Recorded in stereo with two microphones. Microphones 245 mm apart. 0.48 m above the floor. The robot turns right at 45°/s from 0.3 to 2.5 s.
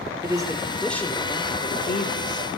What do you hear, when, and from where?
0.2 s a man speaking: 20° right, 1.0 m; by 2.5 s 75° left, 1.0 m